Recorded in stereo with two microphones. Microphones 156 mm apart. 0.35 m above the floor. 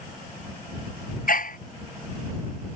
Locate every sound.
1.3 s a dog barking: 65° left (ahead or behind)